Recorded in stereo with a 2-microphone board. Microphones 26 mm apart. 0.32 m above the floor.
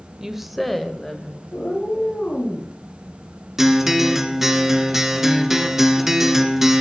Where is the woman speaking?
20° right (ahead or behind), 0.9 m; by 1.4 s 20° left (ahead or behind), 1.8 m.